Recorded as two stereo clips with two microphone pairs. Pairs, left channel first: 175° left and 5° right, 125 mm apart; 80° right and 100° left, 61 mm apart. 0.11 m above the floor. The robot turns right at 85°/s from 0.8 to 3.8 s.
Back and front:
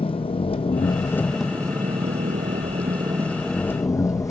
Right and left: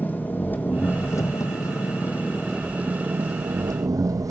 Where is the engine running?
140° right, 1.4 m; by 4.3 s 115° left, 1.4 m.